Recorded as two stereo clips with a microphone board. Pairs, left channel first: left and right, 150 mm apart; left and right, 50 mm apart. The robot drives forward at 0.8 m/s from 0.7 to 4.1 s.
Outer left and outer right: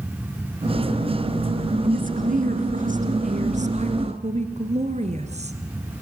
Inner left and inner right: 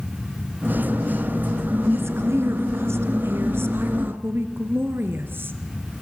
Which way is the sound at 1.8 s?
65° right (ahead or behind).